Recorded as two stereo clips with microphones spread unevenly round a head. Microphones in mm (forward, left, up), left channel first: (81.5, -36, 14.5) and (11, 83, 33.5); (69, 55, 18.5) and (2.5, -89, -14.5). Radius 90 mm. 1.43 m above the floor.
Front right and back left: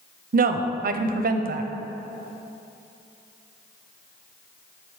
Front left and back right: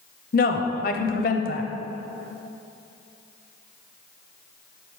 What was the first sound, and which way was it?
A woman speaking, 110° left.